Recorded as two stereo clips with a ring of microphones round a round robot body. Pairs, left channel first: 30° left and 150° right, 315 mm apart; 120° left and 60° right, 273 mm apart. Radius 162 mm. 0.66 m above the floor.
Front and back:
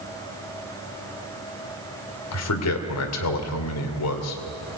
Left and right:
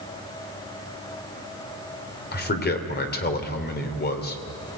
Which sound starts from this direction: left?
A man speaking, at 2.3 s.